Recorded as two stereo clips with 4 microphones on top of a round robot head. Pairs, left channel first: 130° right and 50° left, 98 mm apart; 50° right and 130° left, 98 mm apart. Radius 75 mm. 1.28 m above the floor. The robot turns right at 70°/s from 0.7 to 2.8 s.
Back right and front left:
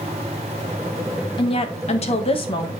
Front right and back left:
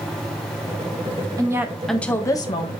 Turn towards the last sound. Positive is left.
turn(degrees=-75)